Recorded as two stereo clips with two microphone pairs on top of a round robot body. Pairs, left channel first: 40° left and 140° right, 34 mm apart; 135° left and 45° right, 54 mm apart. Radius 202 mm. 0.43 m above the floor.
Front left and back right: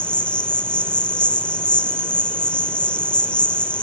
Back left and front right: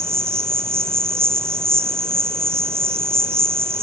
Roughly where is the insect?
Ahead.